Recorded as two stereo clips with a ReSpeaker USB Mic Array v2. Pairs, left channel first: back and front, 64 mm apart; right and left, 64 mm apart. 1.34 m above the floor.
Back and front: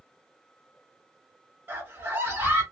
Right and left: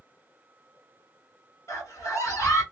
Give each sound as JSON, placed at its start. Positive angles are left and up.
{"t": 1.7, "sound": "a scream", "azimuth_deg": -60, "distance_m": 1.6}